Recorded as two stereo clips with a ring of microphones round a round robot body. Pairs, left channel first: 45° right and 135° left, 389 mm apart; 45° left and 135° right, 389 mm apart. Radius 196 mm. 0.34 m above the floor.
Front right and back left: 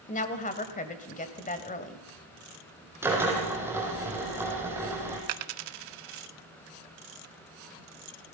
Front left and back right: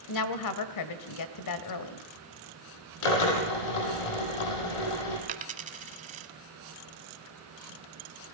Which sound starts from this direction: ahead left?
A drill, at 3.0 s.